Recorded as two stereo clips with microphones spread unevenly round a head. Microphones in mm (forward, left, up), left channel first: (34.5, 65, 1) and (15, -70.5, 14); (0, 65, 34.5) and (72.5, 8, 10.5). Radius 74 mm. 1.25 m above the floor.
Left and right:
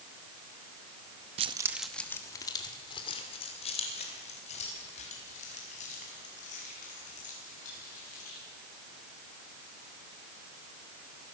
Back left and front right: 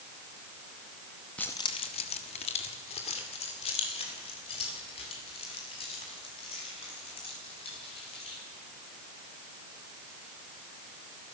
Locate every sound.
1.4 s keys jangling: 145° right, 0.9 m; by 8.4 s 125° left, 10 m